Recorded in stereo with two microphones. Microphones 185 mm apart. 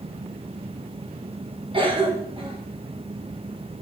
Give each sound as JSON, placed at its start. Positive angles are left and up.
{"t": 1.7, "sound": "a cough", "side_deg": -30, "distance_m": 3.0}